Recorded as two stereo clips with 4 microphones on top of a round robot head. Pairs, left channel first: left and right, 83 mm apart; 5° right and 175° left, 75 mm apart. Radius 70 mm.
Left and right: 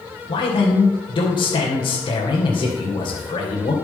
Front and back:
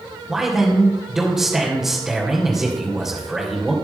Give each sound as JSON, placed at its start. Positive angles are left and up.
{"t": 0.3, "sound": "a man speaking", "azimuth_deg": 90, "distance_m": 3.0}